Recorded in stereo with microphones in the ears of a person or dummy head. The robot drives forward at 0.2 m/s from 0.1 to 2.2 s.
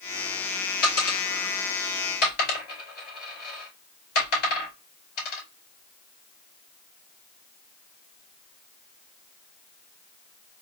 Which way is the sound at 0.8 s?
55° left (ahead or behind).